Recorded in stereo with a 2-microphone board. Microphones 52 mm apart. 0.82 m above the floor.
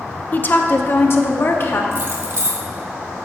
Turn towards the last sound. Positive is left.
turn(degrees=-50)  # may be behind; listen again after turning